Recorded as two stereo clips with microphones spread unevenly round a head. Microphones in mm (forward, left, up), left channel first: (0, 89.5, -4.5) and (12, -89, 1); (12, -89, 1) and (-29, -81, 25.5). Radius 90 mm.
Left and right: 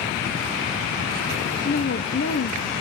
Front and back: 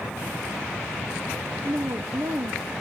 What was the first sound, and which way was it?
A woman speaking, 130° left.